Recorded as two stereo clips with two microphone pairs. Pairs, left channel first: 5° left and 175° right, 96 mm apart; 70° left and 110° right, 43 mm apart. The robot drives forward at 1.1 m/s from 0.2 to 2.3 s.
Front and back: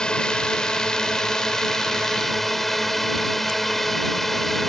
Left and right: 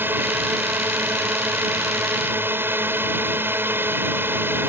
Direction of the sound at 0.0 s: 75° right.